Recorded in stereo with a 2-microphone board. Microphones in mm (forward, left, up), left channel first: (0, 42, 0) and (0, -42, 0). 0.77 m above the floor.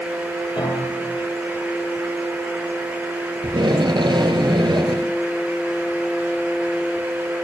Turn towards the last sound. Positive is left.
turn(degrees=-80)